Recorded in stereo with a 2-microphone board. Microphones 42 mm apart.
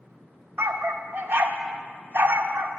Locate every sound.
0.6 s a dog barking: 60° right (ahead or behind), 0.7 m